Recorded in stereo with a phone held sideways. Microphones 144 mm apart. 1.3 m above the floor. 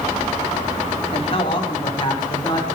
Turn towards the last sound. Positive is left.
turn(degrees=30)  # may be behind; listen again after turning